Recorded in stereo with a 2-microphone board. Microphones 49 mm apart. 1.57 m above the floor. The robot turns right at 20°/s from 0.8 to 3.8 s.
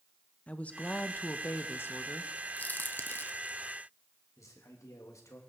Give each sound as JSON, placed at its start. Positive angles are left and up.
{"t": 0.5, "sound": "a woman speaking", "azimuth_deg": 30, "distance_m": 1.1}
{"t": 2.6, "sound": "a crack", "side_deg": 35, "distance_m": 1.0}
{"t": 4.4, "sound": "a man speaking", "side_deg": 85, "distance_m": 3.0}